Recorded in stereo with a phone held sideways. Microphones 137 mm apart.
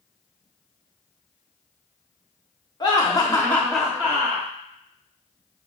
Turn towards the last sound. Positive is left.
turn(degrees=-30)  # may be behind; listen again after turning